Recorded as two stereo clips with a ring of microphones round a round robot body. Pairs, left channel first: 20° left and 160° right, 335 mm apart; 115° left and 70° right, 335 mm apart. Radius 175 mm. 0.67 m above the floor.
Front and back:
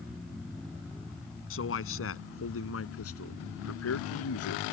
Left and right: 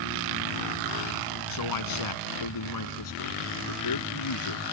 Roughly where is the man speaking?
Left.